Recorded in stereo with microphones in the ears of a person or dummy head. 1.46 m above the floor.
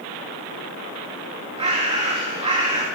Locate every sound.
1.6 s a bird: 30° right (ahead or behind), 2.5 m